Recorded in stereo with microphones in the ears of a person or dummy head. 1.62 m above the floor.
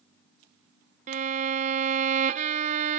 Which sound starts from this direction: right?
A violin, at 1.1 s.